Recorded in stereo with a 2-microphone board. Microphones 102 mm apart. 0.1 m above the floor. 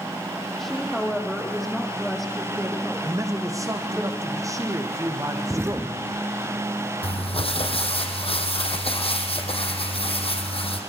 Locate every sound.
0.6 s a woman speaking: centre (ahead or behind), 4.5 m
3.0 s a man speaking: 30° right (ahead or behind), 4 m
5.5 s an explosion: 25° right (ahead or behind), 1.1 m
7.0 s crumpling: 70° left (ahead or behind), 4 m